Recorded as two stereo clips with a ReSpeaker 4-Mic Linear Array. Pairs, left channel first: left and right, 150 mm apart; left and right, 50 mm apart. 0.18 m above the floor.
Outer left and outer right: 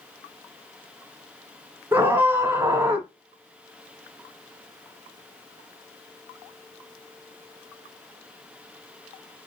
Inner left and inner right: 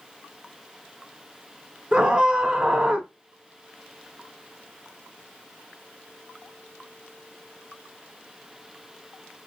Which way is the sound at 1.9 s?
15° right (ahead or behind).